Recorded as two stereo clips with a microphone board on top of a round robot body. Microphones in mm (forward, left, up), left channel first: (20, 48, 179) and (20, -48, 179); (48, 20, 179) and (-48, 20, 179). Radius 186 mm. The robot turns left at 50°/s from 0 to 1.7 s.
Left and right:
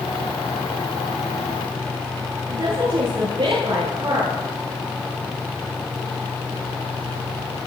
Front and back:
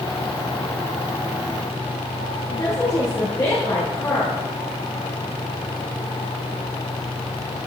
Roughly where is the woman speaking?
Ahead right.